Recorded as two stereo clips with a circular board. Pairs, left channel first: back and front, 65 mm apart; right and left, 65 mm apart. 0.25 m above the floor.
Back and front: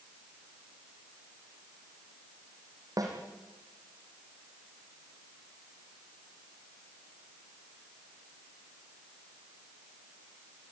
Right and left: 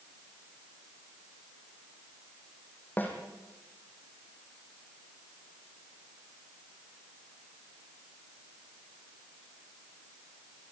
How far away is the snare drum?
About 4 m.